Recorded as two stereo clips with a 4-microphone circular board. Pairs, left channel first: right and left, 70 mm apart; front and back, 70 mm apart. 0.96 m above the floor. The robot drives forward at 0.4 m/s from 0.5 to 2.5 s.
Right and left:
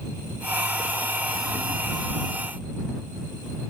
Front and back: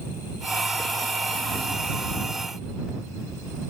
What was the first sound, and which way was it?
Only background noise.